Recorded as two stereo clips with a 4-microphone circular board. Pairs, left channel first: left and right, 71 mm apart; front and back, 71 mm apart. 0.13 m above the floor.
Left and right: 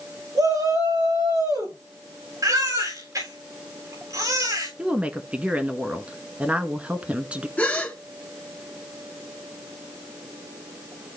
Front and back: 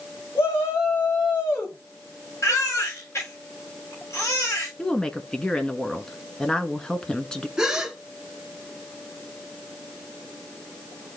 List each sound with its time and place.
0.3 s a shout: 60° right, 9.5 m
2.4 s a baby crying: 50° right, 7.5 m
4.8 s a woman speaking: 55° right, 1.2 m
7.6 s a gasp: 110° left, 1.7 m